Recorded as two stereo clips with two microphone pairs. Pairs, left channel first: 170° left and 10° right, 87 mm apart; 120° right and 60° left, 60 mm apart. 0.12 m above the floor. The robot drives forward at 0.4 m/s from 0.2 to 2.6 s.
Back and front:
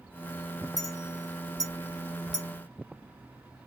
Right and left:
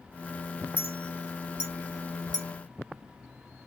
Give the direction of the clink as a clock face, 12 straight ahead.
8 o'clock.